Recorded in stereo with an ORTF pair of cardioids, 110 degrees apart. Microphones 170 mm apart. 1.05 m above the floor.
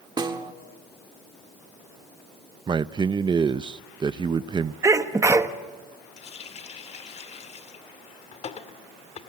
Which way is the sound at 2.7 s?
25° right.